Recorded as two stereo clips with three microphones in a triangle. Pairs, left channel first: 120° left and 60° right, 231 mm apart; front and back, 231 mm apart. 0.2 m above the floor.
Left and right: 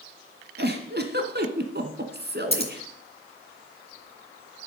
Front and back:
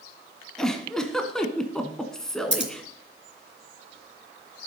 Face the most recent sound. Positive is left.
turn(degrees=175)